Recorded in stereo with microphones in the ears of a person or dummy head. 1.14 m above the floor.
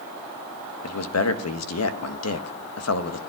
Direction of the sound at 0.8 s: 75° left (ahead or behind).